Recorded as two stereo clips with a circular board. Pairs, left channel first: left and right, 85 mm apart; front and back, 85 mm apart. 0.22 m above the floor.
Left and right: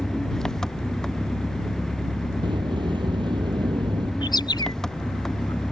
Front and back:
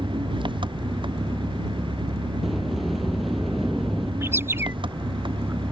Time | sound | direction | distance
0.0 | an engine running | 175° left | ?
2.4 | a sliding door | 90° right | ?
4.2 | a bird | 120° left | ?